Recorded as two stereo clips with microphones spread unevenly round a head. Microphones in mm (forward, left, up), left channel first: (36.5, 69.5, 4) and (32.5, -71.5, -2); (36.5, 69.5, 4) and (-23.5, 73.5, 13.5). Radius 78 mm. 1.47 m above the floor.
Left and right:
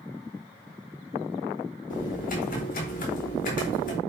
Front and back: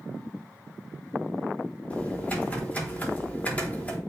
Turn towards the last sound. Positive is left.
turn(degrees=65)